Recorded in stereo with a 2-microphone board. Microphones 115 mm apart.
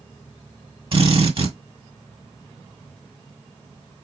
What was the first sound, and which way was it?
A drill, 50° right (ahead or behind).